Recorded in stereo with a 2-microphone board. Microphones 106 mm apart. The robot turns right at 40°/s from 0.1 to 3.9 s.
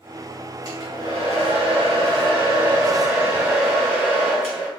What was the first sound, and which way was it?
A hair dryer, 130° right.